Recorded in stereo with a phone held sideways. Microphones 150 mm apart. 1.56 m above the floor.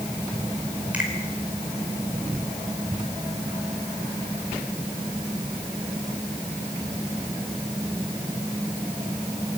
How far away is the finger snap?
About 5 m.